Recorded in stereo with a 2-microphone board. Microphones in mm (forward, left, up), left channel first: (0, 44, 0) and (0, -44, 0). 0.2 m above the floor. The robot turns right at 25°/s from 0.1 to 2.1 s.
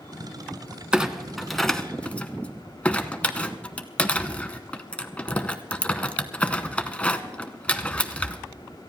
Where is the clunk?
10° right (ahead or behind), 0.9 m; by 8.4 s 15° left (ahead or behind), 0.9 m.